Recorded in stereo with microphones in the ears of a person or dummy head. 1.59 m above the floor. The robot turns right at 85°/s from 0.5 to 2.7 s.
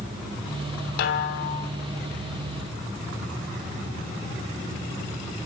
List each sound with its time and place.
1.0 s a snare drum: 70° left, 2 m; by 1.7 s 130° left, 2 m